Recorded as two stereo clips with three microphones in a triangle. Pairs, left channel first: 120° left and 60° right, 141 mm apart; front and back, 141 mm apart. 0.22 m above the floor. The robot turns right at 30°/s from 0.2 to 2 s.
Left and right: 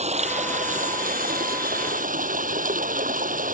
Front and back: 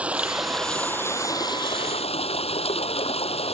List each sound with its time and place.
0.0 s running water: 100° right; by 3.5 s 45° right